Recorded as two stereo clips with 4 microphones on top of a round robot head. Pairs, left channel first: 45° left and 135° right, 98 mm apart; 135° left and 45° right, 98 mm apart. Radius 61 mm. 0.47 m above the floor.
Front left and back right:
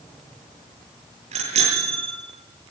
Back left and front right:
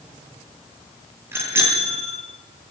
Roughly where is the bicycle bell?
Right.